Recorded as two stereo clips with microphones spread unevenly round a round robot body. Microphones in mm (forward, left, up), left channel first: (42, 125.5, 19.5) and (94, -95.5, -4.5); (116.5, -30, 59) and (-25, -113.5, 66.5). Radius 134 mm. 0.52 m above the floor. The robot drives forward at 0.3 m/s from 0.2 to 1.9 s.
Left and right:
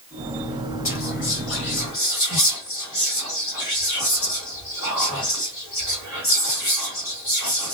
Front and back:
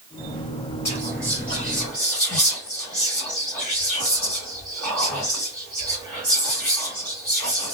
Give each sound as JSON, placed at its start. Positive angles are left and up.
{"t": 0.8, "sound": "whispering", "azimuth_deg": 100, "distance_m": 2.0}